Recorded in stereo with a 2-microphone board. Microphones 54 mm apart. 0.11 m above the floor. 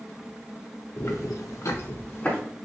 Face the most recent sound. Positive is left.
turn(degrees=25)  # may be behind; listen again after turning